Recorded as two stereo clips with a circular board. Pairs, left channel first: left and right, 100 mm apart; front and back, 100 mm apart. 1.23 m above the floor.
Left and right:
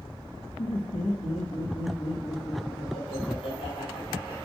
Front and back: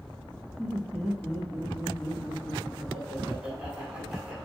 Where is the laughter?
85° left, 1.3 m; by 4.5 s 105° left, 3 m.